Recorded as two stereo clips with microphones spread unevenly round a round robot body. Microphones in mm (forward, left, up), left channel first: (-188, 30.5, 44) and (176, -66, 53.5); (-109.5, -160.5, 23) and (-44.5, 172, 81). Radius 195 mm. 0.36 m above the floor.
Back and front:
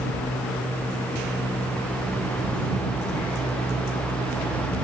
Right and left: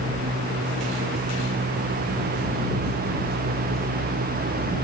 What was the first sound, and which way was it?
Only background noise.